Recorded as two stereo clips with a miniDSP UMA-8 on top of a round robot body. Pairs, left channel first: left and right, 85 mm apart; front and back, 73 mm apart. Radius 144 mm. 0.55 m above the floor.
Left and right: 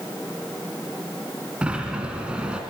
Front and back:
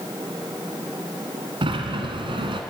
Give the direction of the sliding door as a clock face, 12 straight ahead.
6 o'clock.